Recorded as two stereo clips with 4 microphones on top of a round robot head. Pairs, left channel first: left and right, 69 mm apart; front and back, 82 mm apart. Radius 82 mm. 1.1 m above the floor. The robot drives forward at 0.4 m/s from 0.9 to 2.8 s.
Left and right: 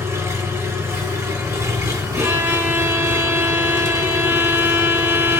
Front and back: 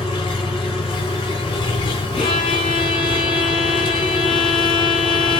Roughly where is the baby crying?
I don't hear a baby crying.